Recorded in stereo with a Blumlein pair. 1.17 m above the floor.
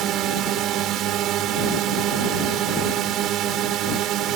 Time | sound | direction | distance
0.0 | a drone | 35° right | ?